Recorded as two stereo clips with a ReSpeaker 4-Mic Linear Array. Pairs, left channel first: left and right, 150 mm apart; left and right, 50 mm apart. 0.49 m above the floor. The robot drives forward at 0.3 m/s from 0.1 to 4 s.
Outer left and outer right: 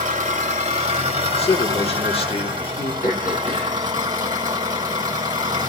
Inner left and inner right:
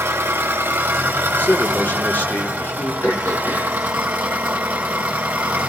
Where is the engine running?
55° right (ahead or behind), 1.2 m; by 5.7 s 30° right (ahead or behind), 2 m.